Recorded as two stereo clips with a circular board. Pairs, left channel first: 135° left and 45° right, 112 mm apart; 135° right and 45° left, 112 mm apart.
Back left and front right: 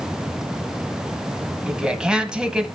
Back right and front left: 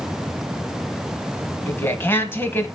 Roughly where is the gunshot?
No gunshot in this recording.